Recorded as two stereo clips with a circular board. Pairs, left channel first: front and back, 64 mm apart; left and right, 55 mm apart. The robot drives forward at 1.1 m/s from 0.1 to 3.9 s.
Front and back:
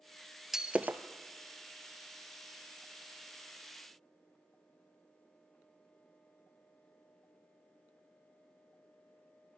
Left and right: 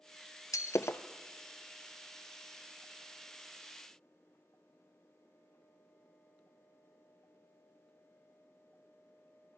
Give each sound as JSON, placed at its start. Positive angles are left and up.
{"t": 0.5, "sound": "breaking glass", "azimuth_deg": 95, "distance_m": 0.9}